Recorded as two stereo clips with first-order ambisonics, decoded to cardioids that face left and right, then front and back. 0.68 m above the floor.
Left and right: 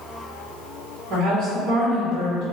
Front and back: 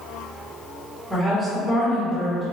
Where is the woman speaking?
85° right, 1.2 m.